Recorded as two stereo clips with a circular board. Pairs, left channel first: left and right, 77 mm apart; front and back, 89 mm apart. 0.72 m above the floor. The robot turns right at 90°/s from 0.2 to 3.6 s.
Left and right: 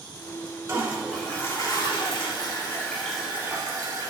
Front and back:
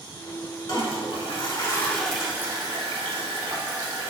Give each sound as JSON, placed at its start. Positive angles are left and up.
{"t": 0.7, "sound": "a toilet flushing", "azimuth_deg": -40, "distance_m": 1.2}